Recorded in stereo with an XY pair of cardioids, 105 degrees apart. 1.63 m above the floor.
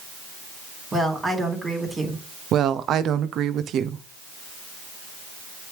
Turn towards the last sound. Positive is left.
turn(degrees=-65)